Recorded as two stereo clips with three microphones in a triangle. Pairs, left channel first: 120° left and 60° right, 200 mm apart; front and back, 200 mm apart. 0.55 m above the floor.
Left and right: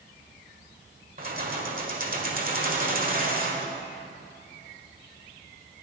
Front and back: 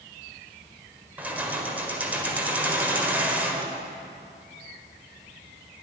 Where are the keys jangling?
100° right, 1.6 m.